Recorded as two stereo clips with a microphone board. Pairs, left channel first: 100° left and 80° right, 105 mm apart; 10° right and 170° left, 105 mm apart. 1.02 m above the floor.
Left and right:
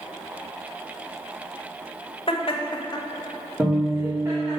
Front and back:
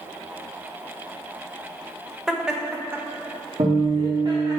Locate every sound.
2.3 s laughter: 80° left, 1.2 m; by 4.6 s 135° right, 1.5 m
3.6 s a guitar: 150° right, 2 m